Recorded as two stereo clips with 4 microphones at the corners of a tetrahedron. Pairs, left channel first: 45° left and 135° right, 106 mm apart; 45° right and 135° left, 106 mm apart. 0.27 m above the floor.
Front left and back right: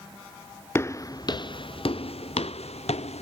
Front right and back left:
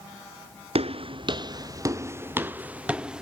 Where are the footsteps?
110° left; by 3.2 s 50° left.